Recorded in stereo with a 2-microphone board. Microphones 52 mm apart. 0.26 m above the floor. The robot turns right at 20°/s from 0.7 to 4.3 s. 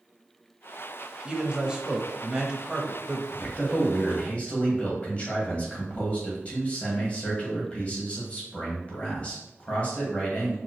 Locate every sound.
1.2 s a man speaking: 20° right (ahead or behind), 0.9 m; by 3.2 s 10° right (ahead or behind), 0.9 m
3.3 s a man speaking: 30° left (ahead or behind), 1.7 m; by 10.6 s 25° left (ahead or behind), 1.7 m